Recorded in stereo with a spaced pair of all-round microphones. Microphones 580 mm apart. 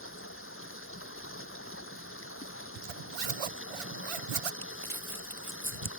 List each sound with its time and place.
0.0 s running water: 20° left (ahead or behind)
2.8 s a zipper: 65° right (ahead or behind)
4.6 s crumpling: 60° right (ahead or behind)